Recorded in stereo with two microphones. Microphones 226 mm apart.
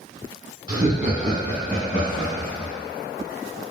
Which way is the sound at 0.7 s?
20° right (ahead or behind).